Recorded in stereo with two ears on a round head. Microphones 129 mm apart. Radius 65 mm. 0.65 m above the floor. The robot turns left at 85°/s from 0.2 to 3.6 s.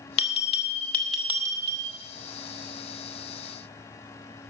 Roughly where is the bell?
Left.